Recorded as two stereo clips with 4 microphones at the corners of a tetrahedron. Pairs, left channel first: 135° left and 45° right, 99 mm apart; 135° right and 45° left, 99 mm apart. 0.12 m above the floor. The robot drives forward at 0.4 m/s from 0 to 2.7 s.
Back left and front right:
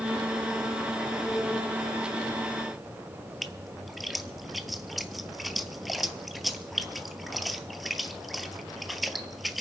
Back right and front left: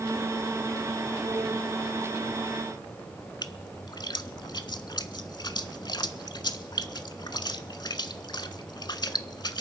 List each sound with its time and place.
3.4 s a splash: 135° right, 0.7 m